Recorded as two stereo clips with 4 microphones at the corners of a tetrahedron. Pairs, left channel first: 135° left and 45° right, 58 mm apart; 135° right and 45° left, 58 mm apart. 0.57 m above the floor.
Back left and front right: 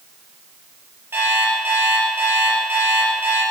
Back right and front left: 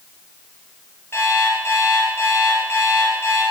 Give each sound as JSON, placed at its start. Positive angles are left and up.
{"t": 1.1, "sound": "an alarm clock", "azimuth_deg": -95, "distance_m": 5.5}